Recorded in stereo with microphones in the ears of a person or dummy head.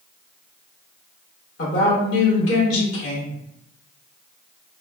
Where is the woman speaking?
65° left (ahead or behind), 1.7 m.